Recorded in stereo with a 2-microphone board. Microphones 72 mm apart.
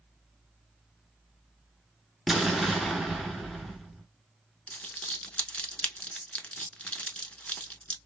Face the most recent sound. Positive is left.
turn(degrees=15)  # may be behind; listen again after turning